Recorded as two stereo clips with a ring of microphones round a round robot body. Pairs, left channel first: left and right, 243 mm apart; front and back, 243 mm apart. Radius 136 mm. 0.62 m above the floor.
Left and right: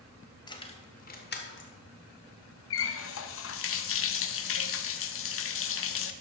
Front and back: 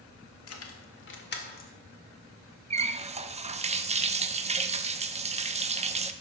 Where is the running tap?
120° left, 0.8 m.